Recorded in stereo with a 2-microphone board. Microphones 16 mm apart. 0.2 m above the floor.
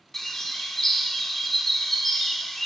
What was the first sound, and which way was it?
A bird, 25° left (ahead or behind).